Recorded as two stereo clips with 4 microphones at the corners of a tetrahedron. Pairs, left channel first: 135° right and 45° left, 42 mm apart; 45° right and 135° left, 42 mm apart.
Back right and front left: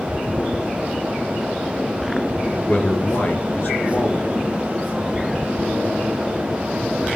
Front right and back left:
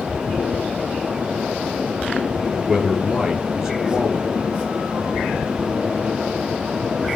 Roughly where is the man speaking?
Behind right.